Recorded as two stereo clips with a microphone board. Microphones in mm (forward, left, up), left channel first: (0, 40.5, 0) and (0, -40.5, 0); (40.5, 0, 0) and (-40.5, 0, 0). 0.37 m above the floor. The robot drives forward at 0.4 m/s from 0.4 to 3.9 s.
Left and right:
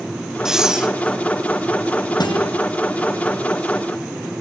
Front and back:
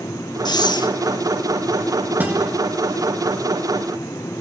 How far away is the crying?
No crying in this recording.